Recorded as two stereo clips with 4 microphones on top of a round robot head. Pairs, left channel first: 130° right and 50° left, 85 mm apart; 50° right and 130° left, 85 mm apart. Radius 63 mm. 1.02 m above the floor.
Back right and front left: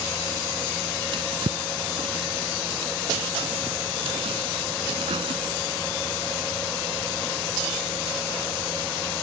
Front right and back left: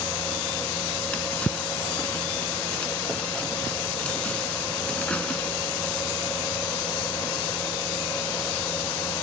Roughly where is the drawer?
Ahead left.